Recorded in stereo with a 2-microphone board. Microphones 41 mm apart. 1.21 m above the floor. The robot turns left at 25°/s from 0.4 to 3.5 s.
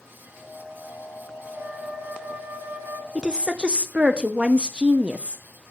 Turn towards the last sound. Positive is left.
turn(degrees=-25)  # may be behind; listen again after turning